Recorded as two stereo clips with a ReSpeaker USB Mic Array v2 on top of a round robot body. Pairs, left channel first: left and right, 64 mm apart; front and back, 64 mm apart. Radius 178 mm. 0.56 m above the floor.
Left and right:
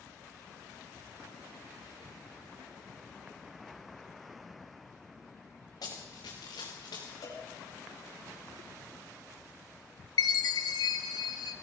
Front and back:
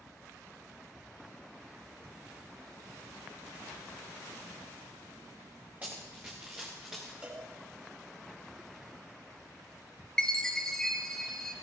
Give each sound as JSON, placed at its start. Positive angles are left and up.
{"t": 5.8, "sound": "running footsteps", "azimuth_deg": 115, "distance_m": 3.0}
{"t": 7.2, "sound": "a cowbell", "azimuth_deg": 110, "distance_m": 5.0}
{"t": 10.2, "sound": "a chime", "azimuth_deg": 80, "distance_m": 0.6}